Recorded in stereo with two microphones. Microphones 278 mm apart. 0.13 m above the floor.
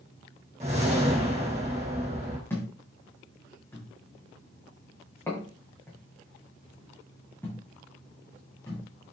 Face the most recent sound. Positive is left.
turn(degrees=10)  # may be behind; listen again after turning